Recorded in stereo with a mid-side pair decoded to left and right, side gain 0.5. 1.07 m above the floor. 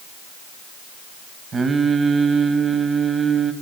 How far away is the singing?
About 0.9 m.